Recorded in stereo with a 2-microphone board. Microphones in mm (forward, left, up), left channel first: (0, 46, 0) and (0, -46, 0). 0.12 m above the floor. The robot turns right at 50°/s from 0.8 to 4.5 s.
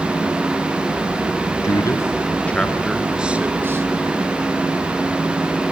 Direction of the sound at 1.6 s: 35° left (ahead or behind).